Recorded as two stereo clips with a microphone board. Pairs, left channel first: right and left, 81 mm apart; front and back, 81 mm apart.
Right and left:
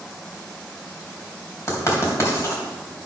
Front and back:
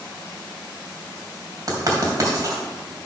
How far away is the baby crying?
No baby crying in this recording.